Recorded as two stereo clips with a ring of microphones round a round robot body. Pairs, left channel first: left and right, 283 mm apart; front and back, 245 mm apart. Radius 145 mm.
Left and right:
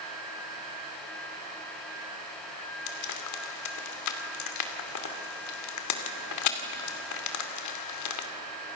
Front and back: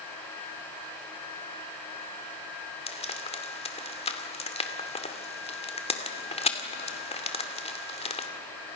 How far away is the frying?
About 2.5 m.